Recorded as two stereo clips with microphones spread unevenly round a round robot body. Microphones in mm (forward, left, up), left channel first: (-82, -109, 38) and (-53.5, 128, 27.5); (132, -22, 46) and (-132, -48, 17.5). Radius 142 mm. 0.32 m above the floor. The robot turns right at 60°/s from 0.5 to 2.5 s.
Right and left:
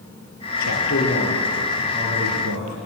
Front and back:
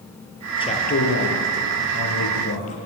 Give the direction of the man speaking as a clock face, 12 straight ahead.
2 o'clock.